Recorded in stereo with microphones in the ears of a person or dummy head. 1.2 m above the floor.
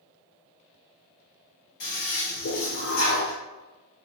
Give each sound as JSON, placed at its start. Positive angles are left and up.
{"t": 1.8, "sound": "a toilet flushing", "side_deg": 65, "distance_m": 1.5}